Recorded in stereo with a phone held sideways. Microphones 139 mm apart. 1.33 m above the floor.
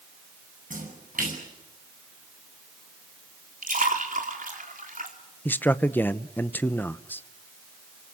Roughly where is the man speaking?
Centre.